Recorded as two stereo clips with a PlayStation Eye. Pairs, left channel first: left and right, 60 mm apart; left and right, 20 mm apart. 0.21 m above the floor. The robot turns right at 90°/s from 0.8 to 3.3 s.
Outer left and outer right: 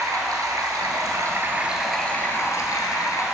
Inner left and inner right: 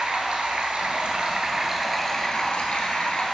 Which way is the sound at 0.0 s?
95° right.